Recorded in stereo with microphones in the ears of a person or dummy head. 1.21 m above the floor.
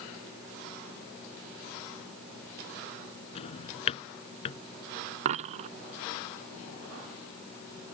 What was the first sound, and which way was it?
A drawer, 40° left (ahead or behind).